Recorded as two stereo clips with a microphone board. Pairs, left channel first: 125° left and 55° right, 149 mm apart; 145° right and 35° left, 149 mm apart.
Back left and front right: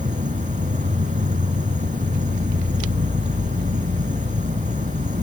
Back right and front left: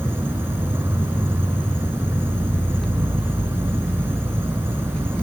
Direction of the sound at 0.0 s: 40° right.